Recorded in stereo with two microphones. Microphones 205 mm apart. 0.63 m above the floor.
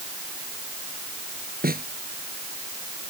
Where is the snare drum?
45° right (ahead or behind).